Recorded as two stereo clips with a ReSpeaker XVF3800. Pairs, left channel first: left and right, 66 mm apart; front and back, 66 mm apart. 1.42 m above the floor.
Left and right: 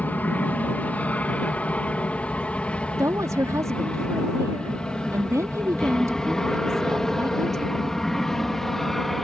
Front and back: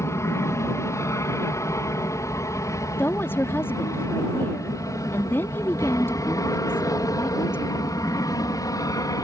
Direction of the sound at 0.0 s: 30° left.